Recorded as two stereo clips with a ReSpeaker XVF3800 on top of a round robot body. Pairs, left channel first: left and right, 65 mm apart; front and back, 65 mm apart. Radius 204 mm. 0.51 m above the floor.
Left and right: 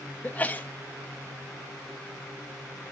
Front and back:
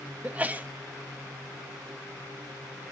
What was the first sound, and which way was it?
A sneeze, 135° left.